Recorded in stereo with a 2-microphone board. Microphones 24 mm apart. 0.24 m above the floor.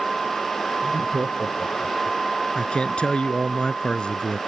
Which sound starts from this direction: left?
A man speaking, at 2.5 s.